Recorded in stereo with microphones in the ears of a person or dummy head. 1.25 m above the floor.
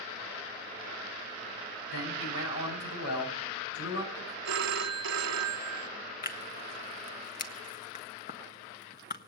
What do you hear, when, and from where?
1.9 s a man speaking: 85° left, 7.5 m
4.5 s a phone ringing: 70° right (ahead or behind), 1.0 m
6.2 s tearing paper: 40° left (ahead or behind), 1.6 m